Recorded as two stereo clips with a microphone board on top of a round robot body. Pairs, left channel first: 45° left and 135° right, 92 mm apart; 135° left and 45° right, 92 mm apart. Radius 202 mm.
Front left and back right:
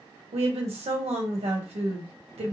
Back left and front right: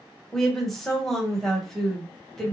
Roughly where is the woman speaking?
Behind right.